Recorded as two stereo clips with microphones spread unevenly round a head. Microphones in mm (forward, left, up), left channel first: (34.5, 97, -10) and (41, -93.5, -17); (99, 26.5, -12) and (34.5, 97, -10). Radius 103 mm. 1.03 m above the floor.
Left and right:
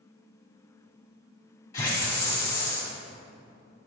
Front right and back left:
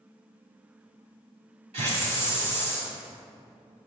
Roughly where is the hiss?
Behind.